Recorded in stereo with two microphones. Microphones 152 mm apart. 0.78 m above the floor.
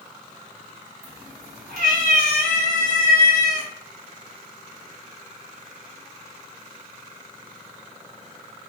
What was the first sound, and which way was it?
A cat meowing, 70° right (ahead or behind).